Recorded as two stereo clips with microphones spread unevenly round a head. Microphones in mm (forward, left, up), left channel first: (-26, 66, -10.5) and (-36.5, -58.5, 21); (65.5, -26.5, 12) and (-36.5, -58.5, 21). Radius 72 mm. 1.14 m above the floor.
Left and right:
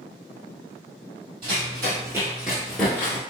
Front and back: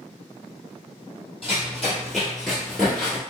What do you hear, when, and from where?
1.4 s running footsteps: 80° right, 1.7 m; by 3.2 s 95° left, 1.1 m